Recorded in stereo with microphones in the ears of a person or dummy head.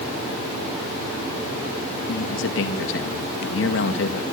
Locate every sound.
2.1 s a man speaking: 65° left (ahead or behind), 1.9 m